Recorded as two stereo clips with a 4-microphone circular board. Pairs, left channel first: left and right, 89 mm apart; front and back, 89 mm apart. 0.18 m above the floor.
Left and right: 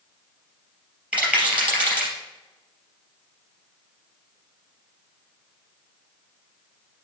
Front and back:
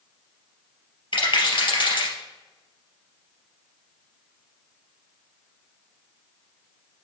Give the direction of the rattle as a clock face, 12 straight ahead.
12 o'clock.